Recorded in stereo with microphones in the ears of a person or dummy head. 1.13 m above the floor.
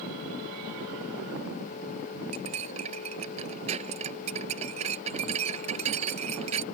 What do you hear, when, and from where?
2.3 s cutlery clinking: 35° right (ahead or behind)